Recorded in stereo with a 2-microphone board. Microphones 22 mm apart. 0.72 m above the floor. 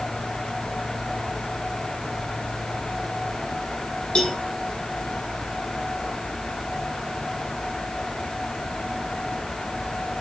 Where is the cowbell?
50° left (ahead or behind), 4 m.